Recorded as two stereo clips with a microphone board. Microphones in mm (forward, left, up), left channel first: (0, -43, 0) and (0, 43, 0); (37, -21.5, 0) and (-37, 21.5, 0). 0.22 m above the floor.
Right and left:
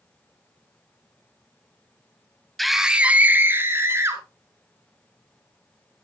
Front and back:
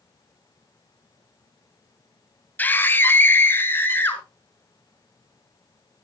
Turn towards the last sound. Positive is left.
turn(degrees=35)